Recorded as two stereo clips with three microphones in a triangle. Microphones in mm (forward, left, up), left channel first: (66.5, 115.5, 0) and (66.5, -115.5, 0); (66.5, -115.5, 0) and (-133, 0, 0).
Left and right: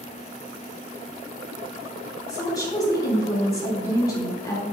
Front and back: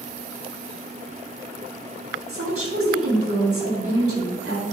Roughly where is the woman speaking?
Behind.